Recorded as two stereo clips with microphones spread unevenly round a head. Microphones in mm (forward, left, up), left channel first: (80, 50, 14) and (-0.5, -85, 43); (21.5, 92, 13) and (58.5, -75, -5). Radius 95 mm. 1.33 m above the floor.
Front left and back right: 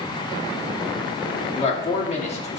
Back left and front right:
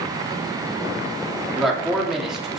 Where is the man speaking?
10° left, 2.5 m.